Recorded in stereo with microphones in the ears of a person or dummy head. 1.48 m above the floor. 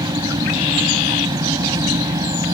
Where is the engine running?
20° right (ahead or behind).